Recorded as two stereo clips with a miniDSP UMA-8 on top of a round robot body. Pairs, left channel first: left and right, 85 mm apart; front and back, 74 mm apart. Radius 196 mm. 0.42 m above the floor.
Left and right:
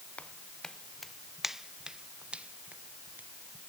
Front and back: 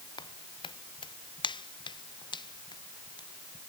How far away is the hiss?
I don't hear a hiss.